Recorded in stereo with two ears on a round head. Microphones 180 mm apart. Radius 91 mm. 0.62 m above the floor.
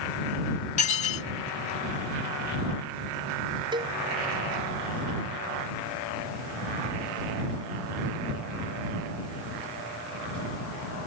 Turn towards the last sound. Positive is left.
turn(degrees=-25)  # may be behind; listen again after turning